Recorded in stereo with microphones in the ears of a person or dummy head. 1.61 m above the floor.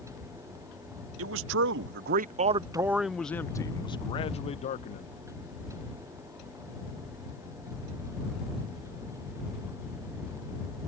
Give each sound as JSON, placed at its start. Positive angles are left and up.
{"t": 1.2, "sound": "a man speaking", "side_deg": -85}